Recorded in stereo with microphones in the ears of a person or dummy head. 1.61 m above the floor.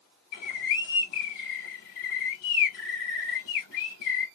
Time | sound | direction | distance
0.3 | a bird | 65° left (ahead or behind) | 2 m